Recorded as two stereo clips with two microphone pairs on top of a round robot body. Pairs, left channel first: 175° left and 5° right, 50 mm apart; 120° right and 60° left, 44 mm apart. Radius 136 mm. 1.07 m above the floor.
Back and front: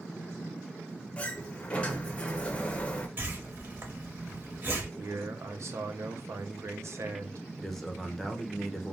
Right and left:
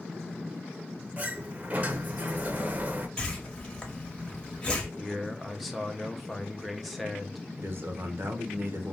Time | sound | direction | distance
1.2 | a sliding door | 105° left | 0.7 m
3.2 | a whoosh | 45° right | 1.1 m
5.0 | a man speaking | 25° right | 0.7 m
7.6 | a man speaking | 85° left | 0.8 m